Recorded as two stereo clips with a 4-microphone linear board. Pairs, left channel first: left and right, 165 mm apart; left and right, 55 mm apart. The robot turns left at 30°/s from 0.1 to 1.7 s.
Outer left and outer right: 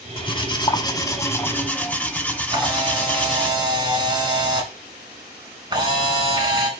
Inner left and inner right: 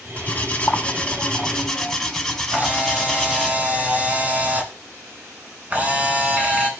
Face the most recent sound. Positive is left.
turn(degrees=-25)  # may be behind; listen again after turning